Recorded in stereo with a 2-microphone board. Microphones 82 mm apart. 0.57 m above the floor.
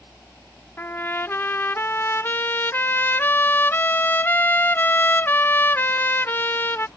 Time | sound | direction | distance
0.8 | a trumpet | 25° left (ahead or behind) | ?